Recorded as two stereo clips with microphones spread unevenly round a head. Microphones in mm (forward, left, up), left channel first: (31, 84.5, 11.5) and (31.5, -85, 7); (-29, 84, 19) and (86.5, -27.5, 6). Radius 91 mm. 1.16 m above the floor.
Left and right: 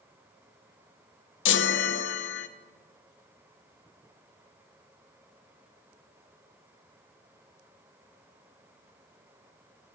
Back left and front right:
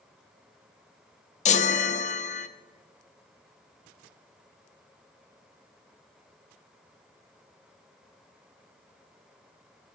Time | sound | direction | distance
1.4 | a chime | 90° left | 0.6 m